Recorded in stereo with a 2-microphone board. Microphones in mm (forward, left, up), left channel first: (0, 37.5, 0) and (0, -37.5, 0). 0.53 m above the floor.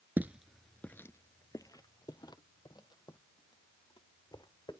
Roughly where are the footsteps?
Right.